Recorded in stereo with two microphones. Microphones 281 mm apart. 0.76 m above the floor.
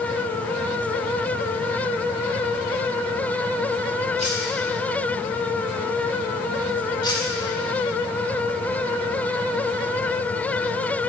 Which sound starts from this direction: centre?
Cutlery clinking, at 7.0 s.